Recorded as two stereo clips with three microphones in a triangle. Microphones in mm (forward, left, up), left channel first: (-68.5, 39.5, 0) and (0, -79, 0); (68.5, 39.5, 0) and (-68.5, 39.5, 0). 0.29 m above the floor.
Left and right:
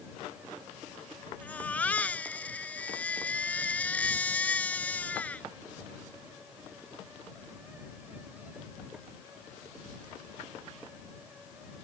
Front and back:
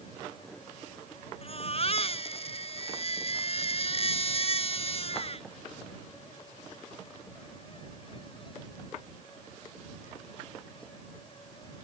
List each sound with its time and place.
1.4 s a baby crying: 40° left